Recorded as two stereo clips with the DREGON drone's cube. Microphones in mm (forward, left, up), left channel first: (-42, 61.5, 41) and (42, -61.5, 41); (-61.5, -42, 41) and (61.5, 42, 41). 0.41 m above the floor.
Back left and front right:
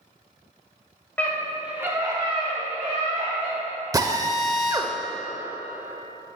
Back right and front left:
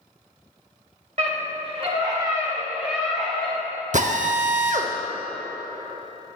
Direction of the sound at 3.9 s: 10° left.